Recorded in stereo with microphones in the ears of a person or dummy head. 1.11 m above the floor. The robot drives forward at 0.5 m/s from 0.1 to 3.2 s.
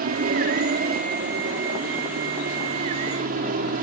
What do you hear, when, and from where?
0.0 s an aircraft: 40° right (ahead or behind)